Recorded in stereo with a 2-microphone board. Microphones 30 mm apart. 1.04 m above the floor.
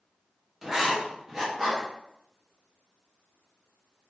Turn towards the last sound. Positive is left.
turn(degrees=-10)  # may be behind; listen again after turning